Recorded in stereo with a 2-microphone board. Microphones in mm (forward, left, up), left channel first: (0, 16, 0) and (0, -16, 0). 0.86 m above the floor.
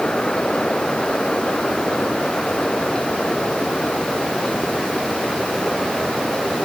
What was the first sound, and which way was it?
Only background noise.